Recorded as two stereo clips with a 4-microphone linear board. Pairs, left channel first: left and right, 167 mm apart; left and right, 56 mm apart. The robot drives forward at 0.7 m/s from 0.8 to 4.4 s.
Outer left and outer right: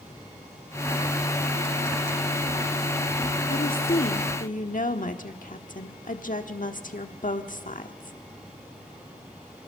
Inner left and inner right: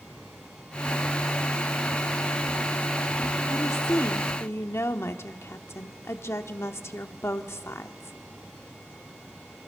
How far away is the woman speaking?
About 1.1 m.